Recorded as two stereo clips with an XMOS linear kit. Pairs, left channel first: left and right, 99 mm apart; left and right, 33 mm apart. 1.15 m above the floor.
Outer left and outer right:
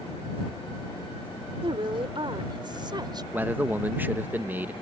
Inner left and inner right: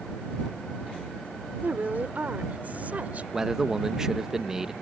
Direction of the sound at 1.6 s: 60° right (ahead or behind).